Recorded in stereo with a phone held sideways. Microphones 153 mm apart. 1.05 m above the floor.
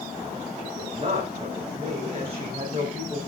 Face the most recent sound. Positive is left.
turn(degrees=-45)  # may be behind; listen again after turning